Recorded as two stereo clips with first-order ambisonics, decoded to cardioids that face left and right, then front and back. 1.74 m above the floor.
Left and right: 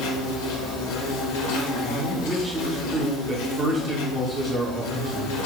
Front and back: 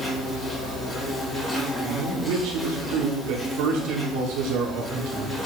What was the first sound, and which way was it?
An insect, 80° left.